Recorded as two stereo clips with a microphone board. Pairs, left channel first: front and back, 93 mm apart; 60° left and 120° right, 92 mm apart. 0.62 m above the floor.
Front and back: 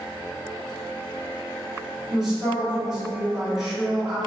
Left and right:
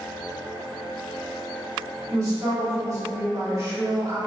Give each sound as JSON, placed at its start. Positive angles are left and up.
{"t": 2.1, "sound": "a man speaking", "azimuth_deg": -90, "distance_m": 1.5}